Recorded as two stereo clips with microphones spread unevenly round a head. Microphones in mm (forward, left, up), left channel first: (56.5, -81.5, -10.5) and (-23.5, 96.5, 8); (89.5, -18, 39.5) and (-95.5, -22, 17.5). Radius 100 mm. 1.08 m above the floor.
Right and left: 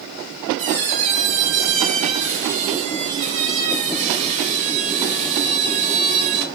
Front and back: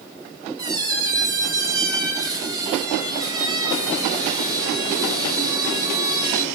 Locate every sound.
0.6 s a squeak: 110° left, 1.2 m